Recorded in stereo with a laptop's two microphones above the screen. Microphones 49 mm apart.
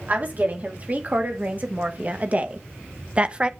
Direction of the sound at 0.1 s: 35° right (ahead or behind).